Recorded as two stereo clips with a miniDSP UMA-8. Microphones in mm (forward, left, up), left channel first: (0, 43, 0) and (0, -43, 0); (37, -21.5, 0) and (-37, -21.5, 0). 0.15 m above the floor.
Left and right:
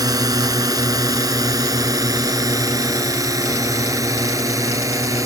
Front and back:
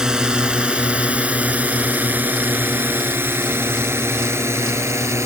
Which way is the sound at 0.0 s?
100° right.